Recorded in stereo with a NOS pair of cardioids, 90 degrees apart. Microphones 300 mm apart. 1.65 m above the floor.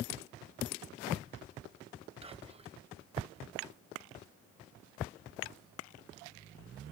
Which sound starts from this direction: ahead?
Whispering, at 2.2 s.